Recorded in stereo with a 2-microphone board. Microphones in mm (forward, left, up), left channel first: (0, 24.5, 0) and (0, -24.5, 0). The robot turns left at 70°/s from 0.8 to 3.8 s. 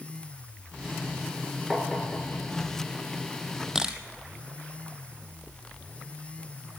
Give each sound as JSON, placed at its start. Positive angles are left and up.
{"t": 1.7, "sound": "tapping", "side_deg": 0, "distance_m": 2.5}
{"t": 3.8, "sound": "a camera shutter", "side_deg": -10, "distance_m": 1.4}